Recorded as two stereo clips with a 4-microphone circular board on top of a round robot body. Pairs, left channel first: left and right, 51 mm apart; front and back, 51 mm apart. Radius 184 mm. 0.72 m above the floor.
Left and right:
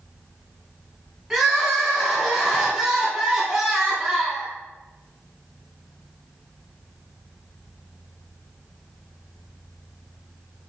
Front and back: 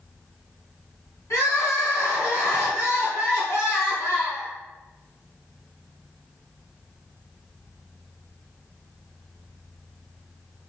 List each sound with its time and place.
1.3 s crying: 10° right, 3 m